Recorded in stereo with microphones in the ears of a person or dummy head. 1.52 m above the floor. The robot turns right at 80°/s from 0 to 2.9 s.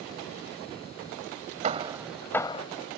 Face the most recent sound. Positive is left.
turn(degrees=55)